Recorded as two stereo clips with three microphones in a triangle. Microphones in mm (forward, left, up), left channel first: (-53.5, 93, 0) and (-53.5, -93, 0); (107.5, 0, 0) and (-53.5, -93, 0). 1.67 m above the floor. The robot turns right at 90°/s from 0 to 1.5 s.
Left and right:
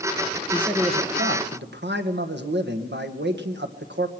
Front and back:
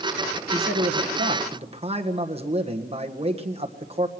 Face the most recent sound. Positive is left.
turn(degrees=-95)